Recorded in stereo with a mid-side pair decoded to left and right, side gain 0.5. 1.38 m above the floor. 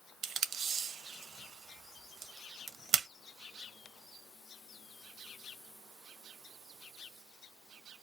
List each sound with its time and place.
0.2 s tape being pulled: 50° right, 0.6 m